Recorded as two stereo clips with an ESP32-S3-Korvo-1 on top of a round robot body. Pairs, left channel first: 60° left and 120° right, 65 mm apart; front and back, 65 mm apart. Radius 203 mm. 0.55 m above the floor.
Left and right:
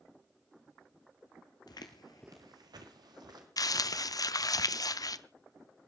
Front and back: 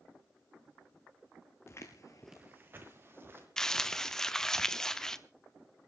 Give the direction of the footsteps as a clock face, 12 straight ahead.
10 o'clock.